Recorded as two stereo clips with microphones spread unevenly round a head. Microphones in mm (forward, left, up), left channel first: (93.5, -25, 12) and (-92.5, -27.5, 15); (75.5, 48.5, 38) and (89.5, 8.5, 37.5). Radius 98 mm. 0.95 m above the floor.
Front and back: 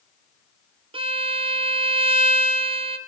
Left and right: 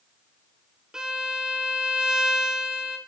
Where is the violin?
140° right, 0.5 m.